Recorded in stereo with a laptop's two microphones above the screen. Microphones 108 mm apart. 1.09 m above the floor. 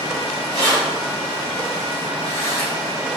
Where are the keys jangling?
35° left (ahead or behind), 1.9 m; by 2.7 s 75° left (ahead or behind), 1.3 m.